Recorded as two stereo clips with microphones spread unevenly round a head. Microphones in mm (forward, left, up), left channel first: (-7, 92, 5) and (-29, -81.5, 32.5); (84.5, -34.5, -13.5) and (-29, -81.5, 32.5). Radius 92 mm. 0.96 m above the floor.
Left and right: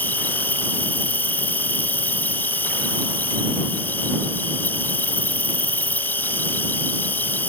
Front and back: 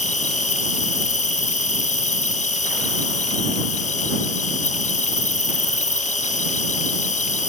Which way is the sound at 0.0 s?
Straight ahead.